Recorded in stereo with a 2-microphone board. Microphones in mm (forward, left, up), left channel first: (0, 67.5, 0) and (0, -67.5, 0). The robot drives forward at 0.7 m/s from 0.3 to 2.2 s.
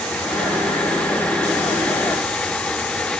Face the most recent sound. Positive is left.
No sound to turn to.